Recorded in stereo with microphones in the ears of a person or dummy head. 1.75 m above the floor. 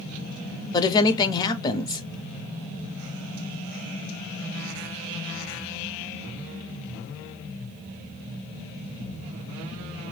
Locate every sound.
0.7 s a woman speaking: 25° left (ahead or behind), 0.6 m